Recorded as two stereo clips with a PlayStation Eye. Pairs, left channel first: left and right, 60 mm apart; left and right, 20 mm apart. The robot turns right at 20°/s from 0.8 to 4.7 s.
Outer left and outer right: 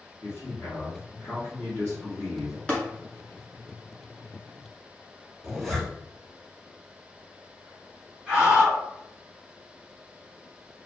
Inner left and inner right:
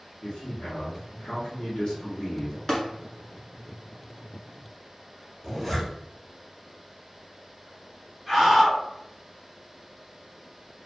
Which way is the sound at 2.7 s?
20° left (ahead or behind).